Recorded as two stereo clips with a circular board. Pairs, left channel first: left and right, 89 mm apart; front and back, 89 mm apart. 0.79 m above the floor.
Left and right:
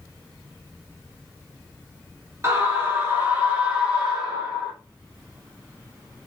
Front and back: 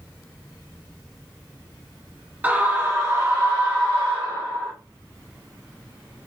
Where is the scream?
120° right, 1.0 m; by 4.7 s 165° right, 1.9 m.